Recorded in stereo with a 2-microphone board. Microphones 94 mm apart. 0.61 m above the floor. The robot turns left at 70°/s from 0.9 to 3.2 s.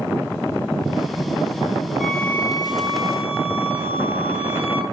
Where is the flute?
175° right, 2 m; by 4.8 s 100° left, 2 m.